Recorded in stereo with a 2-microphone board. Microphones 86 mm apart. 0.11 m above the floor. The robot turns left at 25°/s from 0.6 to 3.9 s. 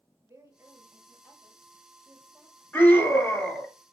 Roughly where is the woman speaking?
Behind right.